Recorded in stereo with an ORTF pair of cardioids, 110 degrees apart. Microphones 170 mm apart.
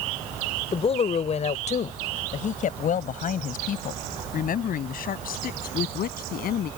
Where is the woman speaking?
35° left; by 6.7 s 60° left.